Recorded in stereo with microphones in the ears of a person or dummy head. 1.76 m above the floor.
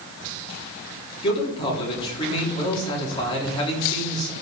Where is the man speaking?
30° left (ahead or behind), 3.5 m.